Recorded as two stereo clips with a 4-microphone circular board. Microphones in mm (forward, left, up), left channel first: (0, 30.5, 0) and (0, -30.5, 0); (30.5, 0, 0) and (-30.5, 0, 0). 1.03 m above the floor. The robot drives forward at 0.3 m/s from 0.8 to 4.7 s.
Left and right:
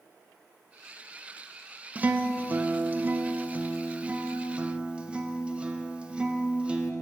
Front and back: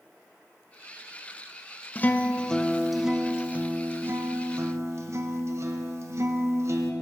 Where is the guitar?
40° right, 0.6 m; by 6.9 s 160° right, 0.7 m.